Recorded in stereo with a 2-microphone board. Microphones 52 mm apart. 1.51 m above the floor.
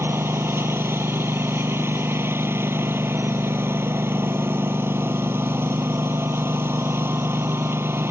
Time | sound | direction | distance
0.0 | a lawn mower | 50° right (ahead or behind) | ?